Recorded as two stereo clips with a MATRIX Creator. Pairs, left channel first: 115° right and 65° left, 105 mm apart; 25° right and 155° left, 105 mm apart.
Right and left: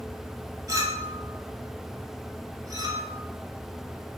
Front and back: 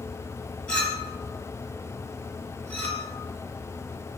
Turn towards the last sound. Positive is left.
turn(degrees=50)